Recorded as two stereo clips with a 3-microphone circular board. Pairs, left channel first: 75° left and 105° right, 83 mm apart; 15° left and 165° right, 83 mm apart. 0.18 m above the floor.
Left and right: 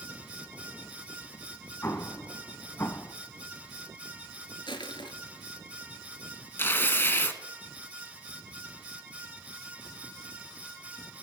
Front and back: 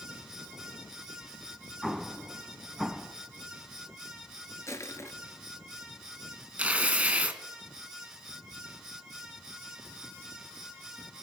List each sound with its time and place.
1.8 s an explosion: 105° left, 0.7 m
4.7 s crushing: 70° left, 1.2 m
6.6 s tearing paper: 130° left, 1.1 m